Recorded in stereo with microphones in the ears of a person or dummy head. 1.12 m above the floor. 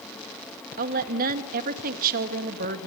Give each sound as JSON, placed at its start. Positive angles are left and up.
{"t": 0.8, "sound": "a woman speaking", "side_deg": -50, "distance_m": 2.0}